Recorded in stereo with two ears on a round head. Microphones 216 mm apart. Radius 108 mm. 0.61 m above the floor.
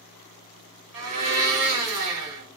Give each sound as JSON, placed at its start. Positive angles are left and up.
{"t": 0.9, "sound": "a blender", "side_deg": -70, "distance_m": 1.4}